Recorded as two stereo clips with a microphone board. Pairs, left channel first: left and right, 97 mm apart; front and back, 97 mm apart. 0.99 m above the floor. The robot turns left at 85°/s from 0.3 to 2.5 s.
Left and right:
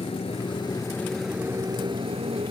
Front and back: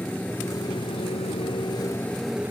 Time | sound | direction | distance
0.0 | a motorcycle | 80° left | ?